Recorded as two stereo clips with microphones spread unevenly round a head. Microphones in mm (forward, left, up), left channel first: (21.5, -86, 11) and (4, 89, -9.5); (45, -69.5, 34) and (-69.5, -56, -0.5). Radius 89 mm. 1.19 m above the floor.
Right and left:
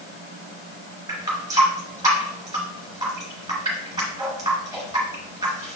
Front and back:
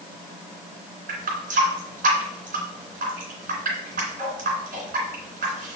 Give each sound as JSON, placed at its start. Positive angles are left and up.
{"t": 1.1, "sound": "a running tap", "azimuth_deg": 170, "distance_m": 2.5}